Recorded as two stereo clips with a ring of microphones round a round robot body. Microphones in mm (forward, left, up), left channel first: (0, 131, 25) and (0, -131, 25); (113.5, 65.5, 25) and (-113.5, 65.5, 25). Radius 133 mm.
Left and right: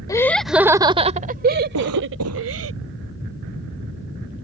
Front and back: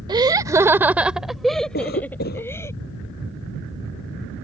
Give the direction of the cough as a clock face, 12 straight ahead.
2 o'clock.